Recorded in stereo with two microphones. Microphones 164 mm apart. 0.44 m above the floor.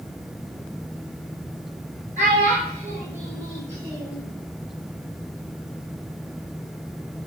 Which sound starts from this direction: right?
A child speaking, at 2.2 s.